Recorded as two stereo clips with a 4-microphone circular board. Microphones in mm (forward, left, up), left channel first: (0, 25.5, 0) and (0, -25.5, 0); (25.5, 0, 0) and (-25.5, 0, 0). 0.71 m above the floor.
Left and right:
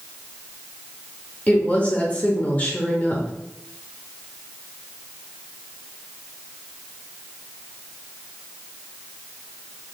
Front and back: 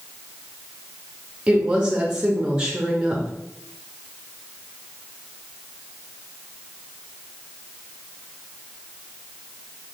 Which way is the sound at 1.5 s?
125° left.